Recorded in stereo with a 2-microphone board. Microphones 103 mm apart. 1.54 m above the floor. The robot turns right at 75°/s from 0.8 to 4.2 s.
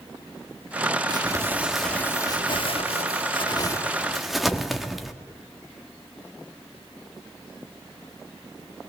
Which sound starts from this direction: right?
Crumpling, at 1.1 s.